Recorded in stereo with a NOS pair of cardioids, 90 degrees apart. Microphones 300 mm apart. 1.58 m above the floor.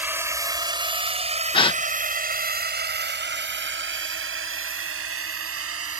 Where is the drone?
5° right; by 6.0 s 50° right.